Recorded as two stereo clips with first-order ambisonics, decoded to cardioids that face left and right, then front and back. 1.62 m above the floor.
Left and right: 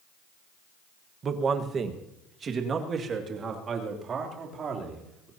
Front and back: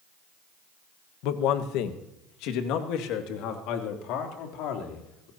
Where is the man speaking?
25° right, 1.2 m.